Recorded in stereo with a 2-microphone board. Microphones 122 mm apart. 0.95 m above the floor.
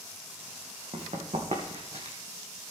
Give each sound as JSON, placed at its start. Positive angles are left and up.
{"t": 0.9, "sound": "running footsteps", "side_deg": -55, "distance_m": 2.5}